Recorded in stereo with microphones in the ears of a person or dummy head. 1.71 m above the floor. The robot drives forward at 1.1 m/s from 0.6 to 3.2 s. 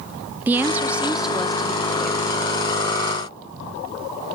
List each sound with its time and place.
0.5 s a woman speaking: 10° right (ahead or behind), 0.7 m; by 2.3 s centre (ahead or behind), 2.5 m